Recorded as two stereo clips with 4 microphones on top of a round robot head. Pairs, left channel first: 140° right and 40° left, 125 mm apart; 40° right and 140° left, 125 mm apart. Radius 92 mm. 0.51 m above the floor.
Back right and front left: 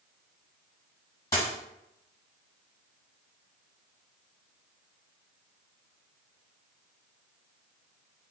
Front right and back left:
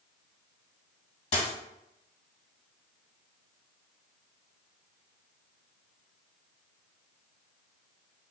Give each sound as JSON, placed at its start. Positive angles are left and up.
{"t": 1.3, "sound": "a dropped coin", "azimuth_deg": -75, "distance_m": 1.6}